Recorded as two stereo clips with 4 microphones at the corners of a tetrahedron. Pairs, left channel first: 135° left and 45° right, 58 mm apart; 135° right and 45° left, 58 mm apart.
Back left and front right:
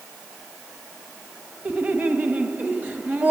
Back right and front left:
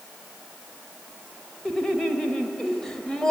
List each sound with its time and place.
1.6 s laughter: 60° right, 1.2 m